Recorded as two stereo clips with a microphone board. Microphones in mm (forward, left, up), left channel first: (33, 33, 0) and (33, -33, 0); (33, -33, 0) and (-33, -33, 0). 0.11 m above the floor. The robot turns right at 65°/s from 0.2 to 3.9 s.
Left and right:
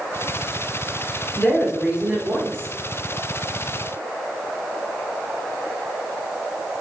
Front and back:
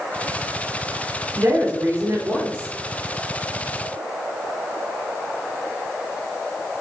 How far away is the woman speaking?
About 1.8 m.